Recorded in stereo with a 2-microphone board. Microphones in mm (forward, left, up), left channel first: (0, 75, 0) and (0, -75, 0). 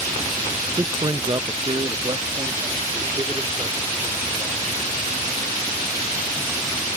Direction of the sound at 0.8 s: 20° right (ahead or behind).